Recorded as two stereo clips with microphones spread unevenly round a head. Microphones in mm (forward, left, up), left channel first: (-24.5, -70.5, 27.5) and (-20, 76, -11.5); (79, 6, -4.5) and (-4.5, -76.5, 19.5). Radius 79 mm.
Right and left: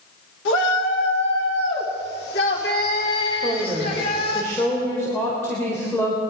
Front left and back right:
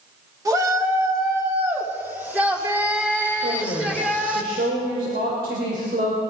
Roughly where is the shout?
Right.